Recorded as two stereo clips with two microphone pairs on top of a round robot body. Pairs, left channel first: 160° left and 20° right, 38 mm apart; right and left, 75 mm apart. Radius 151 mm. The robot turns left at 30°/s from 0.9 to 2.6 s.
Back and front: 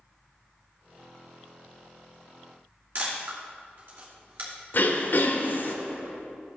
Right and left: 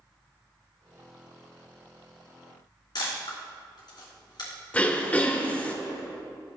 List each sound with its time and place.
3.0 s a camera shutter: 55° right, 3 m
4.7 s throat clearing: 165° right, 1.1 m